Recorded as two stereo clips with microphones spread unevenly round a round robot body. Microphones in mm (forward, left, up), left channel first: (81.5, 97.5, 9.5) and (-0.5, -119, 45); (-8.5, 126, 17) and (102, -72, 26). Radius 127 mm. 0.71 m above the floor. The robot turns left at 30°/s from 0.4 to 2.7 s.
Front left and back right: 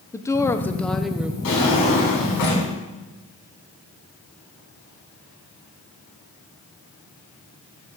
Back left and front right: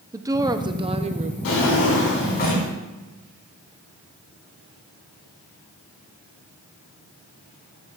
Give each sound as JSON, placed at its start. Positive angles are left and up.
{"t": 0.1, "sound": "a woman speaking", "azimuth_deg": 10, "distance_m": 0.6}
{"t": 1.4, "sound": "a drawer", "azimuth_deg": 100, "distance_m": 4.0}